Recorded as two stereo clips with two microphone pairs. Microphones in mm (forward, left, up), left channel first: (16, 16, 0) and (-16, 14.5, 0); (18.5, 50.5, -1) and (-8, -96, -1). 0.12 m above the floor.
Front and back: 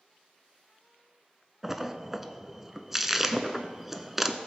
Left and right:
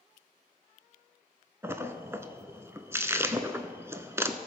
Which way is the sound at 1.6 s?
120° right.